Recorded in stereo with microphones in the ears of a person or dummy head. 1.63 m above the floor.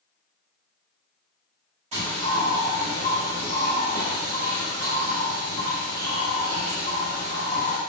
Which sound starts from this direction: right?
A bird, at 1.9 s.